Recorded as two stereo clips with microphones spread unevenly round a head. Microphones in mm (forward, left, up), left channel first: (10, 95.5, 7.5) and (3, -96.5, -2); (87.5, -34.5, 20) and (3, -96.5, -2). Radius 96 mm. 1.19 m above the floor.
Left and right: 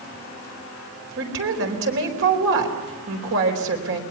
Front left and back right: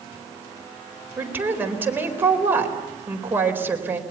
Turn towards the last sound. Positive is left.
turn(degrees=-70)